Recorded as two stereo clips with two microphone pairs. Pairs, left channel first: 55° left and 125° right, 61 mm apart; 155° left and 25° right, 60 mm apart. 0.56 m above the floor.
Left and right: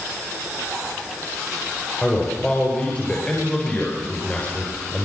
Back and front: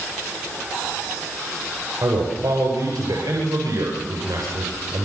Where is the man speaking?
10° right, 9 m.